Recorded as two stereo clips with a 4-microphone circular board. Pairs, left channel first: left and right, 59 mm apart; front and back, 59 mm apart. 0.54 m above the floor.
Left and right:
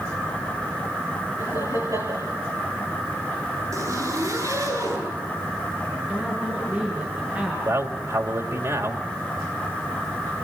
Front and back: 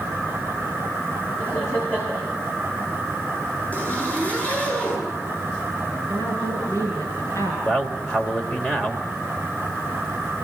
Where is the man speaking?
65° right, 2.5 m.